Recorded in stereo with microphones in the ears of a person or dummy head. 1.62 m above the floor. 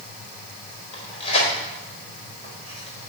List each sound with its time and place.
0.9 s tearing paper: 35° left (ahead or behind), 3.5 m